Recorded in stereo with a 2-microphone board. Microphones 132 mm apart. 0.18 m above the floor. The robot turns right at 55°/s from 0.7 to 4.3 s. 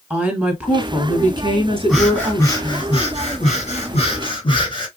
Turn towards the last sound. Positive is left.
turn(degrees=135)